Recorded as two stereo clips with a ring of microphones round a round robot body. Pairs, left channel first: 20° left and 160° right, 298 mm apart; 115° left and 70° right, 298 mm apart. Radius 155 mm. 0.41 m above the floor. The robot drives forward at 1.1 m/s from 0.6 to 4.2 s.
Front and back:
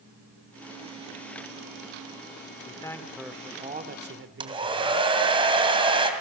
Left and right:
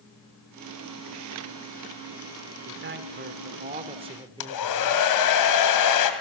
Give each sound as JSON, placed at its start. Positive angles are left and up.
{"t": 2.6, "sound": "a man speaking", "azimuth_deg": -45, "distance_m": 1.8}
{"t": 4.4, "sound": "a hair dryer", "azimuth_deg": 130, "distance_m": 2.5}